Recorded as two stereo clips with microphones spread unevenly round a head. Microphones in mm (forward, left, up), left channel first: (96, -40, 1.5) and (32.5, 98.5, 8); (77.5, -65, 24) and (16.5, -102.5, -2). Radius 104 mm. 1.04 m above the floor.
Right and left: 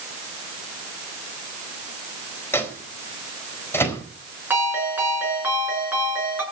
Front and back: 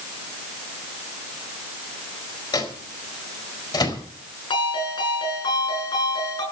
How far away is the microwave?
About 4.5 m.